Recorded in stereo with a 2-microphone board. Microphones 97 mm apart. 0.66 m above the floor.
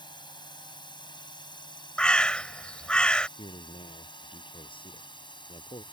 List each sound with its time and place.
0.0 s a drone: 50° left (ahead or behind)
2.0 s a bird: 10° left (ahead or behind)
3.4 s a man speaking: 60° left (ahead or behind)